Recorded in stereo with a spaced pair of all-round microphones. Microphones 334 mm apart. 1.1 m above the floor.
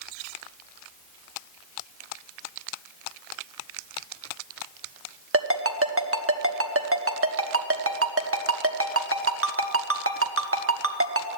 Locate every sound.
5.3 s a ringtone: 40° right (ahead or behind), 1.0 m